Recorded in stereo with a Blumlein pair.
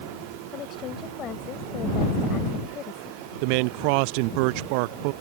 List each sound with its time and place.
0.5 s a woman speaking: 30° left
3.4 s a man speaking: 45° right